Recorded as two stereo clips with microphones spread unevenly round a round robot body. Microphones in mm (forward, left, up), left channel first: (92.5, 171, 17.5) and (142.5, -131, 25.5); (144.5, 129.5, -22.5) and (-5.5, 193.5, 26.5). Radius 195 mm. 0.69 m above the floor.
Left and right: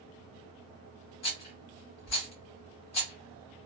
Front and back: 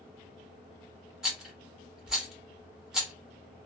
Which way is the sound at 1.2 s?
65° left.